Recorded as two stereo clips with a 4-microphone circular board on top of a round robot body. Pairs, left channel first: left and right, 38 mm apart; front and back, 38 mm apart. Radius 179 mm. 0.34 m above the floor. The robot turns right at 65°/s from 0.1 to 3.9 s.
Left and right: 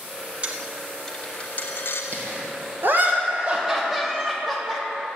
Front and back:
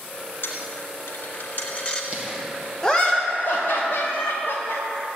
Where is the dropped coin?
30° right, 0.8 m; by 2.0 s 75° left, 0.8 m.